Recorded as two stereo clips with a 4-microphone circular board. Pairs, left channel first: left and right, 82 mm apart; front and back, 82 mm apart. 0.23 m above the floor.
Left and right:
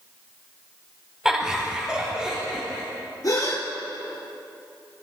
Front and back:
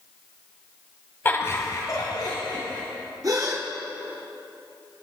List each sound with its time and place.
1.2 s laughter: 15° right, 1.4 m; by 2.8 s 10° right, 3 m
3.2 s a gasp: 135° left, 3 m